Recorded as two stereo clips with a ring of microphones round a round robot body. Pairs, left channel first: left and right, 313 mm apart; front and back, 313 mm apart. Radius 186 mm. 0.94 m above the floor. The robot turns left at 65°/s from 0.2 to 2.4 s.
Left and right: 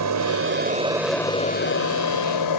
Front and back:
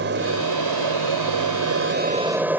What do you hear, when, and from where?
0.0 s an aircraft: 120° right; by 2.6 s 95° left